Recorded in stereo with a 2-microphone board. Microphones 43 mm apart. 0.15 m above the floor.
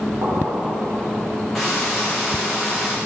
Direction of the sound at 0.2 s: 75° right (ahead or behind).